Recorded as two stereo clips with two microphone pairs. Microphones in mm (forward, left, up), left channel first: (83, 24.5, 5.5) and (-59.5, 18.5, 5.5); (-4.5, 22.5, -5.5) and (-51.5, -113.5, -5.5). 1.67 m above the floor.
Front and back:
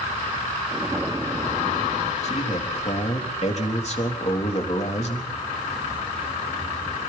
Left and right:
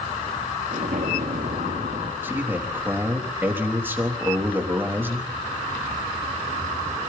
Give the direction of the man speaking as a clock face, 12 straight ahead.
1 o'clock.